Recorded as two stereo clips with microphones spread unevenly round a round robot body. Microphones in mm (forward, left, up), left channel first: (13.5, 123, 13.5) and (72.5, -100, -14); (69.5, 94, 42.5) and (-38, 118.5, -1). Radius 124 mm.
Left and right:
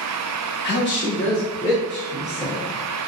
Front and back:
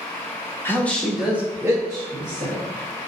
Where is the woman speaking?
75° left, 1.0 m; by 2.6 s 160° left, 1.6 m.